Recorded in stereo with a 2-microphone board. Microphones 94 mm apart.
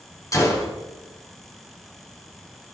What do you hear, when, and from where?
0.3 s a gunshot: 35° left (ahead or behind), 2 m